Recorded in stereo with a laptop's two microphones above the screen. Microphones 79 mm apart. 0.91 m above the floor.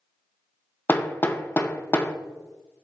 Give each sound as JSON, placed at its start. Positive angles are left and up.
{"t": 0.9, "sound": "hammering", "side_deg": 25, "distance_m": 0.5}